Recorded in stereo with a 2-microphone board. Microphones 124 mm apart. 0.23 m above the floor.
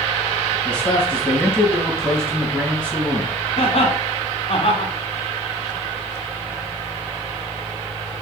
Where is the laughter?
50° left (ahead or behind), 2 m.